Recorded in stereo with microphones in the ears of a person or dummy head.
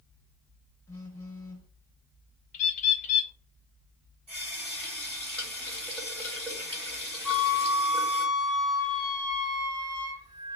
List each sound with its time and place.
0.9 s a phone buzzing: 20° left (ahead or behind), 1.5 m
2.5 s a bird: 45° left (ahead or behind), 0.6 m
4.3 s a running tap: 10° left (ahead or behind), 1.5 m
7.2 s a flute: 10° left (ahead or behind), 1.4 m